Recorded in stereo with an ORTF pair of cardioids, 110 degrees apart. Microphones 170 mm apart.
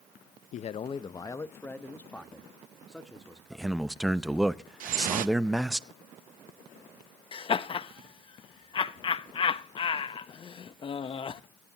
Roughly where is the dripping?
Ahead right.